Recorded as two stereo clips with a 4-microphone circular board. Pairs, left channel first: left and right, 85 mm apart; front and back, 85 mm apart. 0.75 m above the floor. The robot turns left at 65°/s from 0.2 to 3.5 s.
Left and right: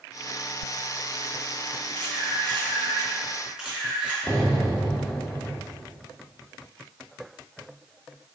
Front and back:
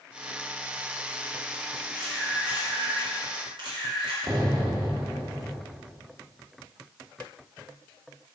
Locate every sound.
1.9 s a camera shutter: 70° right, 2.5 m; by 4.2 s 170° right, 2.5 m
4.3 s an explosion: 165° left, 1.8 m